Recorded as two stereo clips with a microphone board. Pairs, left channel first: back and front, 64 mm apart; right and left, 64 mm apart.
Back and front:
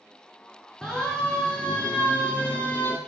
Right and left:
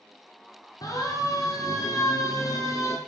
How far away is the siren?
About 7 m.